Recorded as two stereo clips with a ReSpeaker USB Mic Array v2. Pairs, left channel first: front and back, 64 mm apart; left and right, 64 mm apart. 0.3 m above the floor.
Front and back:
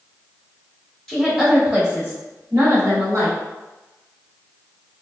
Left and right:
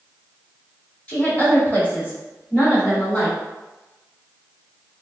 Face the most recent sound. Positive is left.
turn(degrees=140)